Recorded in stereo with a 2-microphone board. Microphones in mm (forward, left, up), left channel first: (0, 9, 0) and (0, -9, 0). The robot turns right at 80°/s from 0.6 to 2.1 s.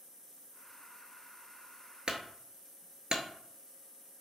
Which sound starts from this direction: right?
A clunk, at 2.1 s.